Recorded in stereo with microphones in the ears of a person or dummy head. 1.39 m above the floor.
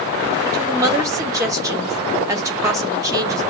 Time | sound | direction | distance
0.5 | a woman speaking | 15° right (ahead or behind) | 1.1 m